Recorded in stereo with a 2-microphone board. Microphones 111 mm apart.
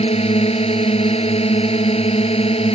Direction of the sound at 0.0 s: 60° left (ahead or behind).